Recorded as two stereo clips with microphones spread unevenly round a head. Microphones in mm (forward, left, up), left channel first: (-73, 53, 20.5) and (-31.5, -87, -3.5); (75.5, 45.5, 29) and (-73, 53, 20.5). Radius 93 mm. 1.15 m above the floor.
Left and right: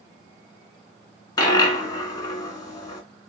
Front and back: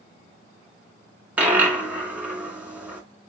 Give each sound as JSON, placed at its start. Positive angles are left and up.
{"t": 1.4, "sound": "a dropped coin", "azimuth_deg": 100, "distance_m": 1.2}